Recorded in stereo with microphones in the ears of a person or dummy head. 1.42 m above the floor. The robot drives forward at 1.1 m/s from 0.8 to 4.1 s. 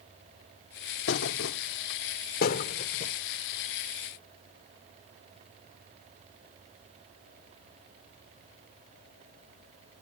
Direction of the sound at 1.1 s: 70° left (ahead or behind).